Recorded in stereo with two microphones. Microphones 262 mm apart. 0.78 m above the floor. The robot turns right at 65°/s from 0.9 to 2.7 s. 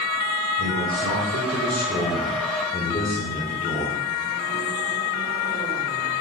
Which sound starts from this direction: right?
A man speaking, at 0.6 s.